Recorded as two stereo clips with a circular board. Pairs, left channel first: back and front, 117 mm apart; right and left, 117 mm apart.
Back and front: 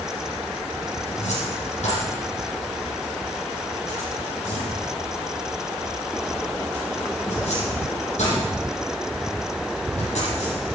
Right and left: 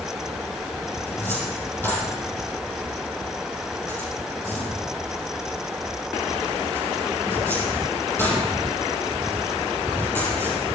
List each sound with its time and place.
1.1 s a cupboard door: 165° right, 8.5 m